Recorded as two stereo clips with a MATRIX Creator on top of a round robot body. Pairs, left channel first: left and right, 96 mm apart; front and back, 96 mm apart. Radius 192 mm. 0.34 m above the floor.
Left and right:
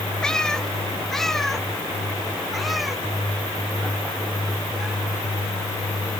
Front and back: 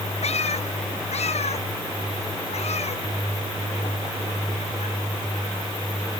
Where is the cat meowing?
5° left; by 4.9 s 5° right.